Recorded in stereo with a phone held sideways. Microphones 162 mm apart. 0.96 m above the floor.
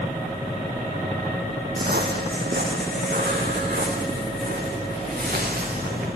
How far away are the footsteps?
About 3 m.